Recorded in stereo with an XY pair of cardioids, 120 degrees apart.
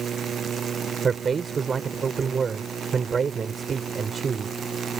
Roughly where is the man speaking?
Ahead right.